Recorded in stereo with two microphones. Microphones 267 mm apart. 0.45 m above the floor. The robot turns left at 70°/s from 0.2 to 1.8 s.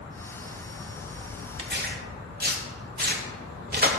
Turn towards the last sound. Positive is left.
turn(degrees=-35)  # may be behind; listen again after turning